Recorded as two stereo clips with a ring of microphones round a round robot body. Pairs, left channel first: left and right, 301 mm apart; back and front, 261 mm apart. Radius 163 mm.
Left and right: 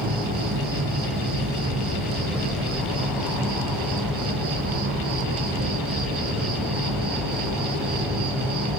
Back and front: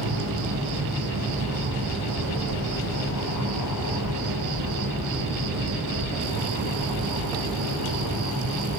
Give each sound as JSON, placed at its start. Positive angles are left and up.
{"t": 0.0, "sound": "an insect", "azimuth_deg": -30, "distance_m": 9.5}